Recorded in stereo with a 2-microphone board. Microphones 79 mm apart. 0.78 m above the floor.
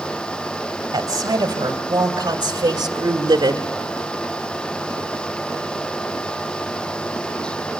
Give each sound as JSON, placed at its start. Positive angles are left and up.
{"t": 0.9, "sound": "a woman speaking", "side_deg": -50, "distance_m": 3.0}